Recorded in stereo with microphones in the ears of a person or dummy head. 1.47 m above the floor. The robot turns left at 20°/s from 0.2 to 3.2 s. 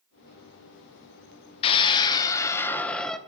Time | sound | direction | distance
1.6 | a scream | 35° left | 1.5 m